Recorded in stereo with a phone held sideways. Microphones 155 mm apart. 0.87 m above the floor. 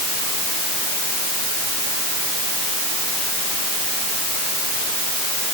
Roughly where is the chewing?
No chewing in this recording.